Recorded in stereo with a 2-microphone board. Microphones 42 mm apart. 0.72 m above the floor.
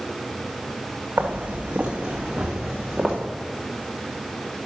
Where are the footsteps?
50° right (ahead or behind), 1.9 m; by 3.1 s 5° left (ahead or behind), 2.5 m.